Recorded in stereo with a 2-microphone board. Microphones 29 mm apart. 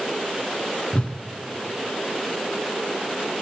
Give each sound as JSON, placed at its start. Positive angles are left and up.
{"t": 0.9, "sound": "a whoosh", "side_deg": 40, "distance_m": 1.2}